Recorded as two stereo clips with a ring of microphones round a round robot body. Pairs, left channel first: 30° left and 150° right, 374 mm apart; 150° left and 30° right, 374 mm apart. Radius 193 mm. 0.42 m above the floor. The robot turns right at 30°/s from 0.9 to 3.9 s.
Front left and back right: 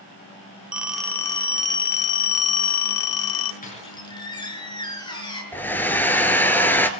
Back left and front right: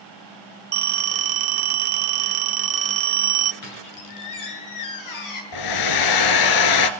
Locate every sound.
0.7 s a phone ringing: 60° right, 1.4 m; by 3.5 s 15° left, 1.4 m
3.6 s a squeak: 100° left, 5.5 m; by 5.4 s 110° left, 5.5 m
5.5 s a hair dryer: 115° left, 1.7 m